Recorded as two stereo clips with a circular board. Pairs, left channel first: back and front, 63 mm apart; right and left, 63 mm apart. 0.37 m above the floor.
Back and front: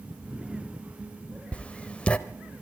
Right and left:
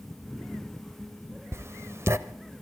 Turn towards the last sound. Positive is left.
turn(degrees=115)